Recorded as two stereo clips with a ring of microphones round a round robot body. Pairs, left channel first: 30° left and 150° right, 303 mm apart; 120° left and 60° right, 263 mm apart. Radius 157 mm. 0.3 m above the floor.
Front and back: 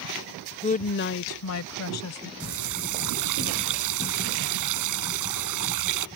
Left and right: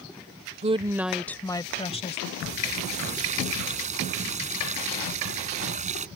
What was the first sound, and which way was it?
A woman speaking, 20° right.